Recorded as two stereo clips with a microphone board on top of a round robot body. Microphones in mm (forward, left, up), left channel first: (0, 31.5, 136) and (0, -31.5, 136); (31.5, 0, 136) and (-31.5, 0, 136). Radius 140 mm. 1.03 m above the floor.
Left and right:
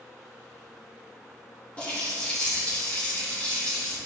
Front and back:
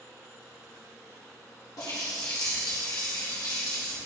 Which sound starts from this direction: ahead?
A running tap, at 1.8 s.